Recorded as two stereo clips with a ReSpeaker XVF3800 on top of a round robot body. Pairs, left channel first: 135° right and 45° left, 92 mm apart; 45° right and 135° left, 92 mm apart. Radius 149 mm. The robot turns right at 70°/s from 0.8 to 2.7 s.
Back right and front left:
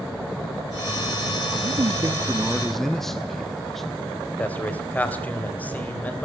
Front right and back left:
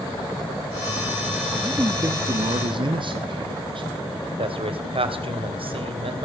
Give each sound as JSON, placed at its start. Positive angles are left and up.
{"t": 1.6, "sound": "a man speaking", "azimuth_deg": 60, "distance_m": 1.2}
{"t": 4.4, "sound": "a man speaking", "azimuth_deg": 150, "distance_m": 3.0}